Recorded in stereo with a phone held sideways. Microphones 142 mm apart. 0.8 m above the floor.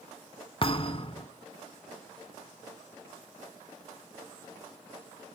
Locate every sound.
0.6 s a thud: 40° left (ahead or behind), 0.9 m